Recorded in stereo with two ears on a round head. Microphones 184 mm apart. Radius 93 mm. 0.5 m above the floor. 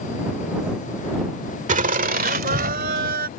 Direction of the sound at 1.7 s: 40° right (ahead or behind).